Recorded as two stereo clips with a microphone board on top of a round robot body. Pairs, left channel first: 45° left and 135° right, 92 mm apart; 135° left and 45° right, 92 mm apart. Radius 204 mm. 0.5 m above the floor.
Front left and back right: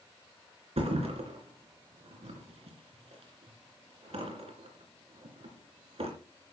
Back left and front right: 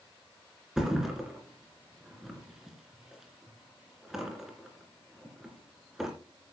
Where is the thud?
130° right, 2.5 m.